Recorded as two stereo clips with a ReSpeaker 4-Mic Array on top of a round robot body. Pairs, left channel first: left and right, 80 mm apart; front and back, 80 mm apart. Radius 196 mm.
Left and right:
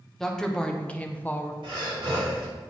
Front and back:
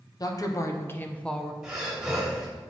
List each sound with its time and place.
0.2 s a woman speaking: 5° left, 1.3 m; by 1.5 s 90° left, 1.0 m
1.6 s breathing: 95° right, 2.5 m